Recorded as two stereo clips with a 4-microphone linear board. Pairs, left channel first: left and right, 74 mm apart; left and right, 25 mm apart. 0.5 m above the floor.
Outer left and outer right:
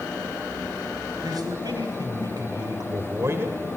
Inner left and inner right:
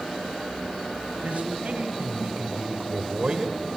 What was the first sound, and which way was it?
A man speaking, 60° right (ahead or behind).